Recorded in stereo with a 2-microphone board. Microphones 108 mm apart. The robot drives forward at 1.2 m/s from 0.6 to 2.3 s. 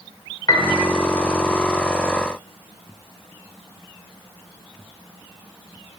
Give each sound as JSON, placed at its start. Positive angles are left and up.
{"t": 0.5, "sound": "a piano", "side_deg": 40, "distance_m": 1.5}